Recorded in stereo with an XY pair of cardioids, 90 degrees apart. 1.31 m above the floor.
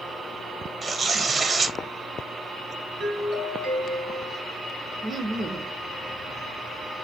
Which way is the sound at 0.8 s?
40° right.